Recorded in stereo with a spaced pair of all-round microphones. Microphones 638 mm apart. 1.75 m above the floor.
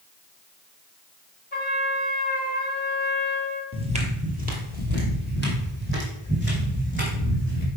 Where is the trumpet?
15° left (ahead or behind), 1.5 m.